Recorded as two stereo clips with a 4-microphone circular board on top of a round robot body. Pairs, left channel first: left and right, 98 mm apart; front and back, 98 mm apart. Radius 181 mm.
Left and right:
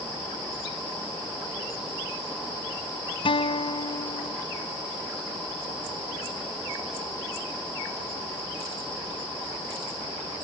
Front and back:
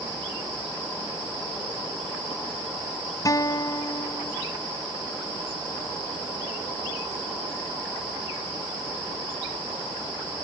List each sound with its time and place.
3.2 s a guitar: 55° left